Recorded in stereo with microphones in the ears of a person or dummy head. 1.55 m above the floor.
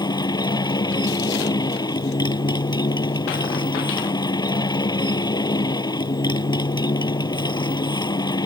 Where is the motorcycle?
20° left (ahead or behind).